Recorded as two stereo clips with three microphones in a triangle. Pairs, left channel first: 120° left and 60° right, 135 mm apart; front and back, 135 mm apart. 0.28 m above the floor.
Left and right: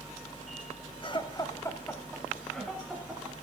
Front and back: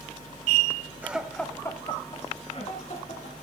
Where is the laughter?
110° left, 1.5 m; by 3.3 s 25° left, 3.5 m.